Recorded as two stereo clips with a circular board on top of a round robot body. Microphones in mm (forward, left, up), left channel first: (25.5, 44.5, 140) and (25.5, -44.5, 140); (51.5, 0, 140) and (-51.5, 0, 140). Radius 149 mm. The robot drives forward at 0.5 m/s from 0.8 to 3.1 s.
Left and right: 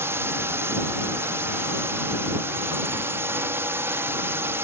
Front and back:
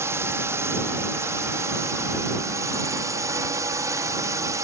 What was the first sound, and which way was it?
A drone, 135° right.